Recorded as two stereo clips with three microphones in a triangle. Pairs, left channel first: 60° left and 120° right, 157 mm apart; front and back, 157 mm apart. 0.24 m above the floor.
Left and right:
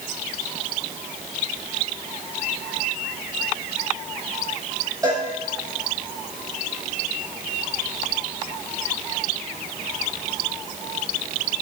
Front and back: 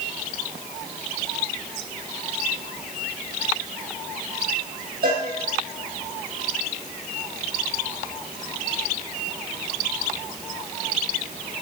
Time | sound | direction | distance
5.0 | a cowbell | 175° left | 3.5 m